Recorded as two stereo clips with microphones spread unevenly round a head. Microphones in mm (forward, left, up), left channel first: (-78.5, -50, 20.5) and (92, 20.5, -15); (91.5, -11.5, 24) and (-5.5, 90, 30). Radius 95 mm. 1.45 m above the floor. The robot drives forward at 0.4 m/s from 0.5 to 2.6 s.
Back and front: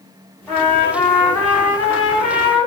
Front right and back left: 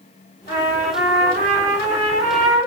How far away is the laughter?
No laughter in this recording.